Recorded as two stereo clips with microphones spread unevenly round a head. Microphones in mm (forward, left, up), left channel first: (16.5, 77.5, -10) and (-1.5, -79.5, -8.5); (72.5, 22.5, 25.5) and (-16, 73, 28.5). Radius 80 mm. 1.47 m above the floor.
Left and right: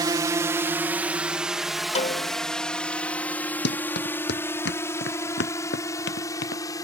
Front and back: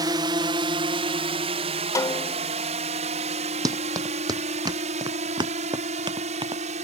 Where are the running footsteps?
100° left; by 6.6 s 110° left.